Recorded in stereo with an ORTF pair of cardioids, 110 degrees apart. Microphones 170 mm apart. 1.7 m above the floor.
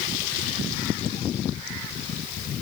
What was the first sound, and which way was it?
Only background noise.